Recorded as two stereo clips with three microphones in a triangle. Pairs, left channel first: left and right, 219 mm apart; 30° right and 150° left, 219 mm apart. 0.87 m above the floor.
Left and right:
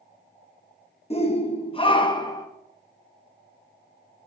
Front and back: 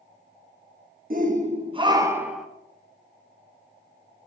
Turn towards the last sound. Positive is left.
turn(degrees=60)